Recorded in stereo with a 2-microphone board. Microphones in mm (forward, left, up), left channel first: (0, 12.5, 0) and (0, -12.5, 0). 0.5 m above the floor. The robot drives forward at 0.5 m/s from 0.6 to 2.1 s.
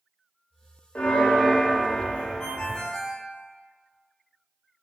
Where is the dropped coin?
I don't hear a dropped coin.